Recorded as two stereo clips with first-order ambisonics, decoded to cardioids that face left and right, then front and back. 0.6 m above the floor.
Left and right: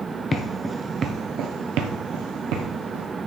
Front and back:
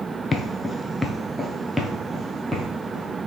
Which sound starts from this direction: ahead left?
Footsteps, at 0.3 s.